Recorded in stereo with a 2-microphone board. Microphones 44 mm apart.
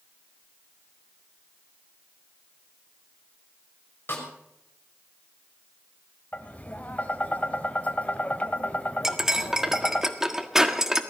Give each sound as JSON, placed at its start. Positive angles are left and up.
{"t": 4.1, "sound": "a snare drum", "side_deg": 50, "distance_m": 5.5}
{"t": 6.3, "sound": "tapping", "side_deg": 30, "distance_m": 1.7}
{"t": 9.0, "sound": "cutlery clinking", "side_deg": -10, "distance_m": 1.5}